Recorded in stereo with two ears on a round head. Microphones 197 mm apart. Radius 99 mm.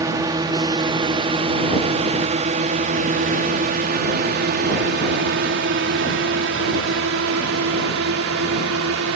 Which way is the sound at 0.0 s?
15° right (ahead or behind).